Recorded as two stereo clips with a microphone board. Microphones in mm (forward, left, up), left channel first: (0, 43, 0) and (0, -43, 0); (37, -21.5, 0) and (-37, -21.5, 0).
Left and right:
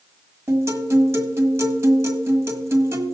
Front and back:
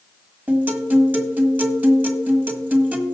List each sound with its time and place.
0.5 s a guitar: 125° right, 1.5 m